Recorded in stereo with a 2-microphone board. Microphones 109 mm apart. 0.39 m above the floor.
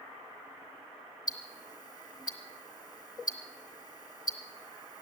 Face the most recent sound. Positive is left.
turn(degrees=35)  # may be behind; listen again after turning